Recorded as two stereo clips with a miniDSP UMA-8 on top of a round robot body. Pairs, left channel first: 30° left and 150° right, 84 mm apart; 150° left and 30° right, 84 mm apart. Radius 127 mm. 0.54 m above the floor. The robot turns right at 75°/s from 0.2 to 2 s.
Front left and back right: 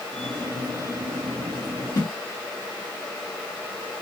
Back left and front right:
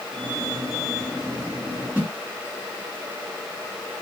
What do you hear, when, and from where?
1.9 s a whoosh: 25° left, 1.6 m; by 2.1 s 30° left, 1.6 m